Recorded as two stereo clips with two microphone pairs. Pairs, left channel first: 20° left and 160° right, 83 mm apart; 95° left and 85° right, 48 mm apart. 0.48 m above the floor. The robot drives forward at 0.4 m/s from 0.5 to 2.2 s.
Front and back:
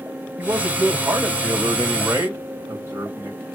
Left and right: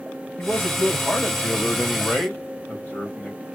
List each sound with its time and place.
0.4 s a man speaking: 135° left, 2 m; by 3.4 s 150° left, 2.5 m